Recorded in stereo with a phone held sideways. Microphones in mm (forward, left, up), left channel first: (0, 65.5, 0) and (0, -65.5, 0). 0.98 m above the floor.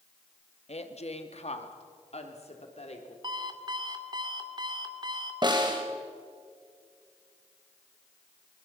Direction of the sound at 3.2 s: 35° right (ahead or behind).